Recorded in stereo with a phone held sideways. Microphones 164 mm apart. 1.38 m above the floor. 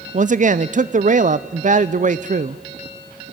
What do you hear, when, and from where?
0.1 s a man speaking: 50° right (ahead or behind), 0.5 m